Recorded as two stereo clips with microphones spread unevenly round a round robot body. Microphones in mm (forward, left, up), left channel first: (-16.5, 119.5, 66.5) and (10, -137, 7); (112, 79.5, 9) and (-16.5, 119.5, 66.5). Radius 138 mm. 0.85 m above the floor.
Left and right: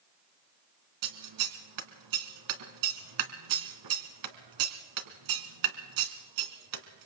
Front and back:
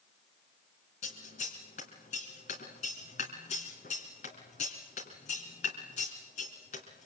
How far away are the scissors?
About 2.5 m.